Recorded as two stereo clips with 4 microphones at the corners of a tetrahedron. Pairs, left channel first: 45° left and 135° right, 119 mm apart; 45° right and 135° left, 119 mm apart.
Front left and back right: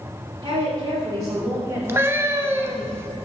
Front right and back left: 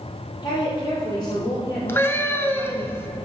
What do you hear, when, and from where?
0.4 s a woman speaking: 95° right, 2 m; by 2.9 s 35° right, 1.3 m
1.9 s a cat meowing: 90° right, 0.6 m